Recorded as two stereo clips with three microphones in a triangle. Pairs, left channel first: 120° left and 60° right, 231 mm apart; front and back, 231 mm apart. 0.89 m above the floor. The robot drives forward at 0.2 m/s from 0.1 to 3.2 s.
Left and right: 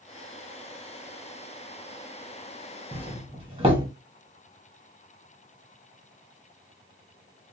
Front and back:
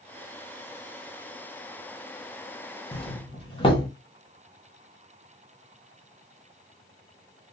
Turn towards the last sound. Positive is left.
turn(degrees=-35)